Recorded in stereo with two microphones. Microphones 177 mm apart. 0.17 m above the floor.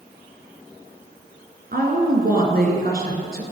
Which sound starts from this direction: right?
A woman speaking, at 1.7 s.